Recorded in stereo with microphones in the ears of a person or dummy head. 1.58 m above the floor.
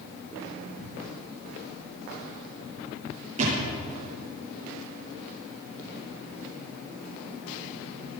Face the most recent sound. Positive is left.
turn(degrees=-40)  # may be behind; listen again after turning